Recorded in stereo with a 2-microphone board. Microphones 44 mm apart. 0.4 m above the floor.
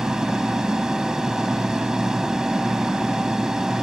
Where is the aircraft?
10° right (ahead or behind).